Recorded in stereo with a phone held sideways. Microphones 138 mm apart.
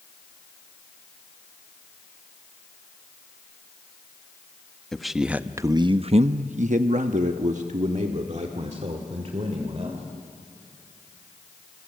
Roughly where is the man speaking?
Centre.